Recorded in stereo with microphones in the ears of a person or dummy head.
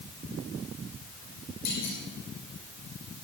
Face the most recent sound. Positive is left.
turn(degrees=55)  # may be behind; listen again after turning